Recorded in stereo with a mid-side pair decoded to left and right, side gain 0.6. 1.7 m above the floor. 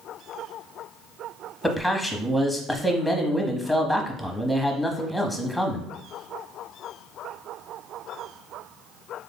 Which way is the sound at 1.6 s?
5° left.